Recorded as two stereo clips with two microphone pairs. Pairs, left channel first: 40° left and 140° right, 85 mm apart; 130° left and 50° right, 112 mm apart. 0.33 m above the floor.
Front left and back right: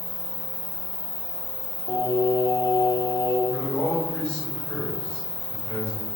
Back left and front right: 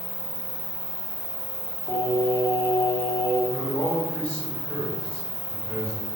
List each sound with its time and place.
0.0 s an insect: 150° right, 1.6 m
1.9 s singing: 65° left, 0.6 m
3.5 s a man speaking: 95° left, 0.9 m